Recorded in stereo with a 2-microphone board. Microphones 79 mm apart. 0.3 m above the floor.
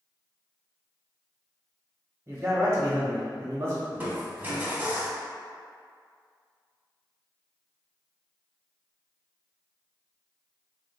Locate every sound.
2.3 s a man speaking: 40° right (ahead or behind), 1.0 m
3.9 s crushing: 25° right (ahead or behind), 0.9 m